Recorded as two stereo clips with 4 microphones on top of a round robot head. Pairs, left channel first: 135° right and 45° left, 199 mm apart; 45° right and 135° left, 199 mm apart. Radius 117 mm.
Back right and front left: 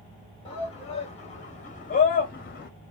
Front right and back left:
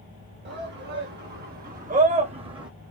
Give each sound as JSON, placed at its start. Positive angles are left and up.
{"t": 0.5, "sound": "a shout", "azimuth_deg": 160, "distance_m": 1.9}